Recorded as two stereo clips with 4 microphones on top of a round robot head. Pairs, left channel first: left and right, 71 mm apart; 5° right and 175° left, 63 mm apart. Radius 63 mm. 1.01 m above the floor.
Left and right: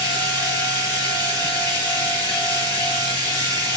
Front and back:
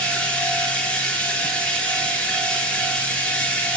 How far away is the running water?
About 1.9 m.